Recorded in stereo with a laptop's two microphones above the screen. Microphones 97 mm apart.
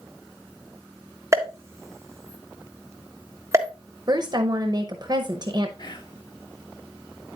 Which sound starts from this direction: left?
Whispering, at 5.8 s.